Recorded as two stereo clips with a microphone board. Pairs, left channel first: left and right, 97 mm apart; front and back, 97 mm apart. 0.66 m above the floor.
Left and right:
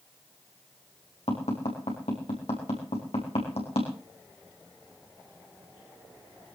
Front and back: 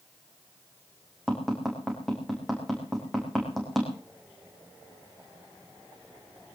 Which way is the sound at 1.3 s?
85° left.